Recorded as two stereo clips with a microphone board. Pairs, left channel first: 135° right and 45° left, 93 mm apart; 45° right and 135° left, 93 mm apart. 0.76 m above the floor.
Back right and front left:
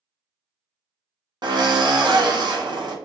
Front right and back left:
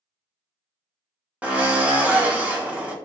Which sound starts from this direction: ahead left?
A drill, at 1.4 s.